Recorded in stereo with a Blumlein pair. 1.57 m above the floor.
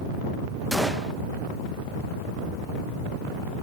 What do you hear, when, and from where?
0.7 s a gunshot: straight ahead, 1.7 m